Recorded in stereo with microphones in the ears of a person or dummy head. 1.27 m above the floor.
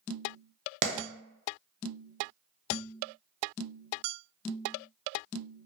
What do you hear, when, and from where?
0.8 s a clap: 40° right (ahead or behind), 0.6 m